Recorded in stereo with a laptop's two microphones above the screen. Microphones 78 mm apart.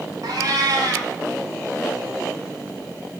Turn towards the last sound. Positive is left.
turn(degrees=-65)  # may be behind; listen again after turning